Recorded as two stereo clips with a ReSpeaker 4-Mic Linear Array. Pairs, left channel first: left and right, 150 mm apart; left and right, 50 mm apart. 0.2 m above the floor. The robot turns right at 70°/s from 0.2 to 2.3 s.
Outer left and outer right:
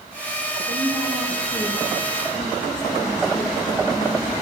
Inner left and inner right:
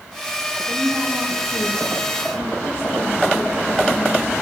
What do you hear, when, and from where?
0.7 s a woman speaking: 80° right, 7 m; by 4.3 s 35° left, 7 m